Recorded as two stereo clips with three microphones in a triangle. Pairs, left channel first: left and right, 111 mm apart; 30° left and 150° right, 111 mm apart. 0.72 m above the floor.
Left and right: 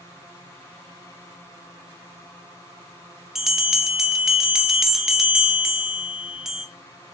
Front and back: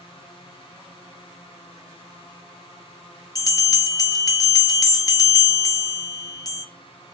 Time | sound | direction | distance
3.4 | a bell | 5° right | 0.9 m